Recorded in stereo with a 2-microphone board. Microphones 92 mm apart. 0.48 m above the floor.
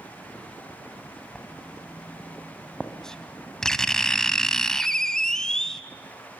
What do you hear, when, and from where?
1.4 s writing: 5° left (ahead or behind), 1.3 m